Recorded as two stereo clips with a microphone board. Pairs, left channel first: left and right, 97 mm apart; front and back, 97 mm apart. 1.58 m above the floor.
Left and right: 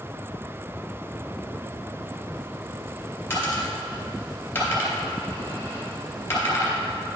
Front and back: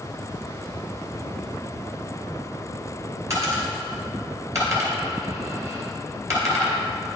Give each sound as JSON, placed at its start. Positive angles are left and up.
{"t": 3.3, "sound": "a dropped coin", "azimuth_deg": 140, "distance_m": 2.0}